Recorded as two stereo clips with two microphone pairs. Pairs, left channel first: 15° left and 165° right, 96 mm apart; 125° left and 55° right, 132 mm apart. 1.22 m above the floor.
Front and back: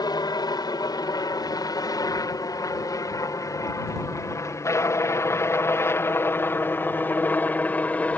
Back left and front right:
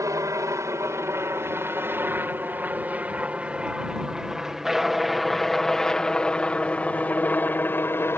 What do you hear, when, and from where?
0.0 s a helicopter: straight ahead; by 8.2 s 75° left